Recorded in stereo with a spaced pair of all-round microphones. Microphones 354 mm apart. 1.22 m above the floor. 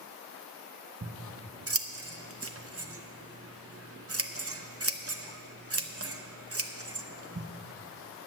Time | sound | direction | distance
1.0 | scissors | 40° right (ahead or behind) | 0.7 m